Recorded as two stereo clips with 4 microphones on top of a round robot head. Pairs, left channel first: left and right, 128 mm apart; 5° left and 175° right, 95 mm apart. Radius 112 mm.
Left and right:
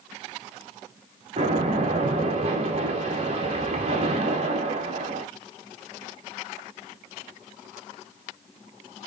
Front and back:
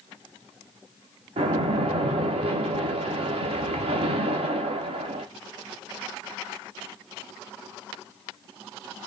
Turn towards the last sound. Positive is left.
turn(degrees=-140)